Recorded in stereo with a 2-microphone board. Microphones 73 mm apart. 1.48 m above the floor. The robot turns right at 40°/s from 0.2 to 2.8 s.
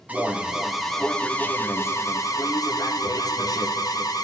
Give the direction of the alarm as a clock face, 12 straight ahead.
1 o'clock.